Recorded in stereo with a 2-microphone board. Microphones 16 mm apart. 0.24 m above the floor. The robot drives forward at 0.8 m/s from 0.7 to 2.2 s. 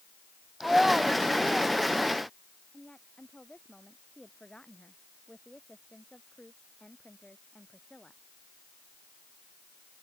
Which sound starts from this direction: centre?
A child speaking, at 0.6 s.